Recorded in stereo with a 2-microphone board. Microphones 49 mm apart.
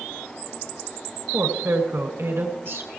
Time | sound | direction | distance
1.3 | a woman speaking | 55° right (ahead or behind) | 2.5 m